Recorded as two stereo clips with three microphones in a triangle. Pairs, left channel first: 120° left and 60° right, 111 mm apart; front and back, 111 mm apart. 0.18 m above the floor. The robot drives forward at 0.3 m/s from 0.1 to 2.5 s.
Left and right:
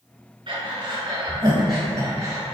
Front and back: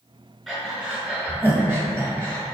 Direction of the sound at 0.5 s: 95° right.